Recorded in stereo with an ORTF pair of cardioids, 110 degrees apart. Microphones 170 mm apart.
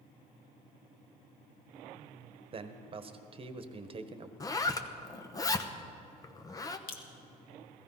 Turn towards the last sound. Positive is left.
turn(degrees=65)